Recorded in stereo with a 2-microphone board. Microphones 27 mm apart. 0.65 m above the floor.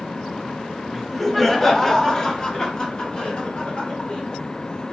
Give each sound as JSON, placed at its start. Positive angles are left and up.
{"t": 0.9, "sound": "laughter", "side_deg": -5, "distance_m": 1.0}